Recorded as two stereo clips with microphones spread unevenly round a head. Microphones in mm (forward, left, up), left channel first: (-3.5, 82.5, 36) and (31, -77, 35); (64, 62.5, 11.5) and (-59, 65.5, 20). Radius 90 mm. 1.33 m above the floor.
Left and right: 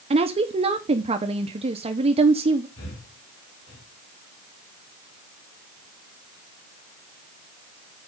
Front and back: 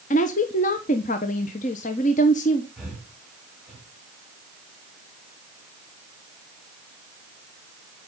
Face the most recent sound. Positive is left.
turn(degrees=95)